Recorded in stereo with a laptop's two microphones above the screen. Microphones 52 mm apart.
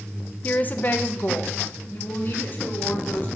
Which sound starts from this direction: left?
A woman speaking, at 0.4 s.